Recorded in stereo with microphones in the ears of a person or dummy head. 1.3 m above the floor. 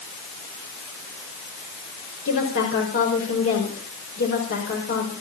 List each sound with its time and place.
2.2 s a woman speaking: 65° left (ahead or behind), 5.5 m